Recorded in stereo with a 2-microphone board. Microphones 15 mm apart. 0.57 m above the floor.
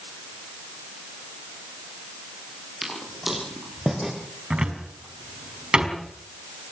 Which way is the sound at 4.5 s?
70° right (ahead or behind).